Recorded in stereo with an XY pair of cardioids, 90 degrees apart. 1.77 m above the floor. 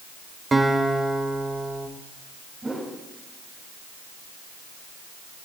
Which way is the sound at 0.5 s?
30° right.